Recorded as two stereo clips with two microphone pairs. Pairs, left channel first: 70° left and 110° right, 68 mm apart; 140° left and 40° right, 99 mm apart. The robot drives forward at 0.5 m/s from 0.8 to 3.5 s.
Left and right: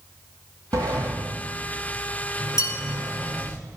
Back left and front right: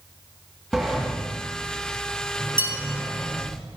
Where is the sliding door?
125° right, 4 m; by 3.6 s 140° right, 5 m.